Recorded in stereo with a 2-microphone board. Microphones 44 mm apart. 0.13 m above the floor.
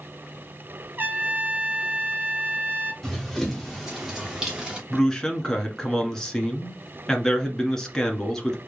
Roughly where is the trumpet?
Right.